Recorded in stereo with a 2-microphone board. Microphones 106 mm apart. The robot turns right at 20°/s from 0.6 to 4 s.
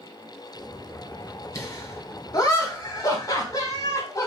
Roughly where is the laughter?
Left.